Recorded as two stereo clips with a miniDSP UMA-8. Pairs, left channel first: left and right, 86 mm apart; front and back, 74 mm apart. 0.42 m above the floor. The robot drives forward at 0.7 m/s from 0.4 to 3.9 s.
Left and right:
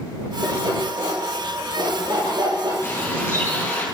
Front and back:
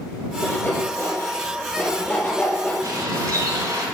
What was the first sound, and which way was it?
Sawing, 65° right.